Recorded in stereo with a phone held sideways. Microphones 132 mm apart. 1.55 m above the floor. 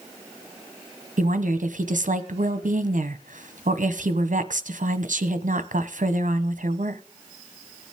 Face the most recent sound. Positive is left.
turn(degrees=-75)  # may be behind; listen again after turning